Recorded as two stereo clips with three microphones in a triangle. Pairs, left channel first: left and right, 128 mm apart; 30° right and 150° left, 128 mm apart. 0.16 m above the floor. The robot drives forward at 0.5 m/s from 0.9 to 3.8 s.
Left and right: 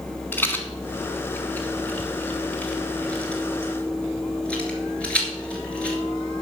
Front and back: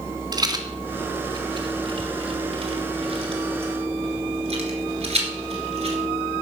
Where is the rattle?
150° left, 1.4 m; by 6.0 s 170° left, 2.5 m.